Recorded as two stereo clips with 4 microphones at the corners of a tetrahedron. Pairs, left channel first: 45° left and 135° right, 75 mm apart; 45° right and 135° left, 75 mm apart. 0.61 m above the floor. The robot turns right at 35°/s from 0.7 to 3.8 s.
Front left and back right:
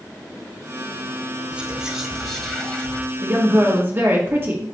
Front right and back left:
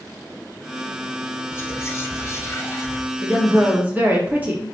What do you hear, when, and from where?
1.5 s whispering: 65° right, 0.7 m; by 3.0 s 15° right, 0.7 m
3.2 s a woman speaking: 170° left, 1.3 m; by 4.7 s 170° right, 1.3 m